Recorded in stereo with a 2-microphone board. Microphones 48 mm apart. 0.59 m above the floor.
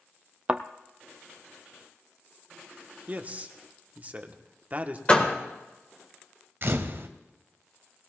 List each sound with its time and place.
0.5 s a thud: 25° right (ahead or behind), 0.7 m
3.1 s a man speaking: 30° right (ahead or behind), 1.1 m
5.1 s a door slam: 20° left (ahead or behind), 1.6 m
6.6 s a camera shutter: 50° right (ahead or behind), 1.0 m